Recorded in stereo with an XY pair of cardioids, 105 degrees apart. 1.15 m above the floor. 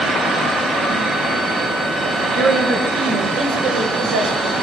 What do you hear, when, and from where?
2.0 s a woman speaking: 65° right, 7.5 m; by 4.5 s 75° right, 5.5 m